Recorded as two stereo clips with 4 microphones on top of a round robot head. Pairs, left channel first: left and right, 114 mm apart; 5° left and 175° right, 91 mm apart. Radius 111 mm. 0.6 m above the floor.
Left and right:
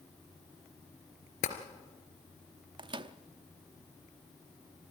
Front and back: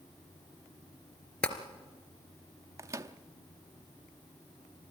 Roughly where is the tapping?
Left.